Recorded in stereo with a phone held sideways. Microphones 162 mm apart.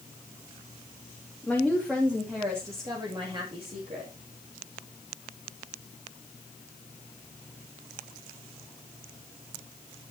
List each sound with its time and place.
1.4 s a woman speaking: 5° left (ahead or behind), 2.5 m; by 4.1 s 40° right (ahead or behind), 3 m